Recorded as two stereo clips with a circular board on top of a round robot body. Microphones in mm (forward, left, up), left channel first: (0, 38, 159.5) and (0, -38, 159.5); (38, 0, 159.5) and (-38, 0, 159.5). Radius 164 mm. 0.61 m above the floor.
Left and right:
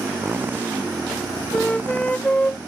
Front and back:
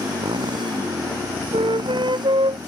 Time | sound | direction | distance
0.0 | a motorcycle | 155° right | ?
1.5 | a flute | 165° left | ?